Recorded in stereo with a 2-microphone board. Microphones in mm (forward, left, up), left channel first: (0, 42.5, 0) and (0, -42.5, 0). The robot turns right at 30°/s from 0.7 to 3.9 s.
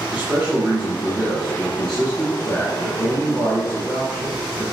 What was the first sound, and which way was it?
A man speaking, 15° right (ahead or behind).